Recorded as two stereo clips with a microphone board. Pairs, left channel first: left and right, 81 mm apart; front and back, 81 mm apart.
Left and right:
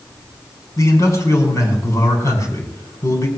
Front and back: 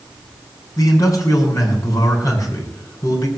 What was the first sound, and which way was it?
A man speaking, 40° left.